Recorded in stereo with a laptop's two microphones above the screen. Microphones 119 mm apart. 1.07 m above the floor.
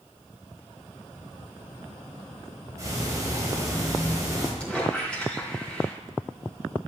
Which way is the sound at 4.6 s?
10° left (ahead or behind).